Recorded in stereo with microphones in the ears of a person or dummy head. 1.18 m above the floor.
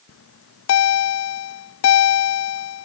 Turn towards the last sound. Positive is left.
turn(degrees=75)  # may be behind; listen again after turning